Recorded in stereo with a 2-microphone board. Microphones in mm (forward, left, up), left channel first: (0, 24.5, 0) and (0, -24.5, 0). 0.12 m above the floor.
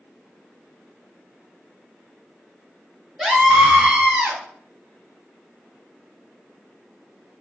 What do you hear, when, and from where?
3.2 s a scream: 5° right (ahead or behind), 1.9 m; by 4.4 s 15° right (ahead or behind), 2.5 m